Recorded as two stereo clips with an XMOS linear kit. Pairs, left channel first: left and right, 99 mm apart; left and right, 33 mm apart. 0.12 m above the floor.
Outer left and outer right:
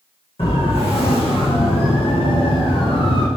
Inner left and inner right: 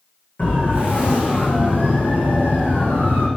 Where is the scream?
I don't hear a scream.